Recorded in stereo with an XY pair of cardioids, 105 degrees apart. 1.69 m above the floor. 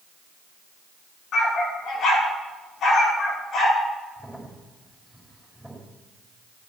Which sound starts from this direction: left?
A dog barking, at 1.3 s.